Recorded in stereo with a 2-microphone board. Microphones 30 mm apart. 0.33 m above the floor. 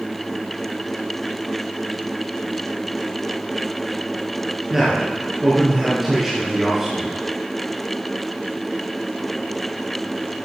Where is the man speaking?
5° right (ahead or behind), 4 m.